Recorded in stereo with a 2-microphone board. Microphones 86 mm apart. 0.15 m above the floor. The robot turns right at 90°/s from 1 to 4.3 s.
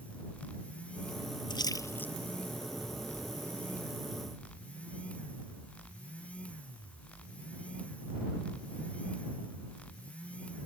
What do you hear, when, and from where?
1.5 s a splash: 60° left (ahead or behind); by 2.1 s 15° left (ahead or behind)